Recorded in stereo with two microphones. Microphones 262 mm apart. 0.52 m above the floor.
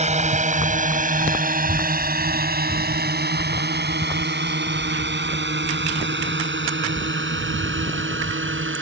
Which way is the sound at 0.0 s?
25° right (ahead or behind).